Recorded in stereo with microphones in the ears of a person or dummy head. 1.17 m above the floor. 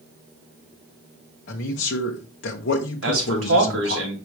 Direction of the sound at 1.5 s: 55° left (ahead or behind).